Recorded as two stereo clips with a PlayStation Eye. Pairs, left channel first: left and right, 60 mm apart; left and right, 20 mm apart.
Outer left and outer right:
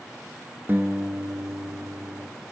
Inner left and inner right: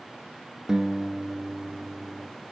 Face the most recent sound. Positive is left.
turn(degrees=-35)  # may be behind; listen again after turning